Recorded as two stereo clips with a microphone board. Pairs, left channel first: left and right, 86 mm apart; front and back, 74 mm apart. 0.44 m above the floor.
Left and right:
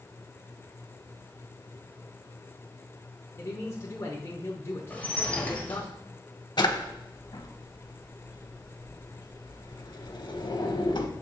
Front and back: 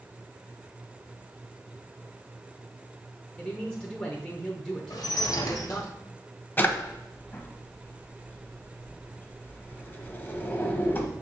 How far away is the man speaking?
About 1.0 m.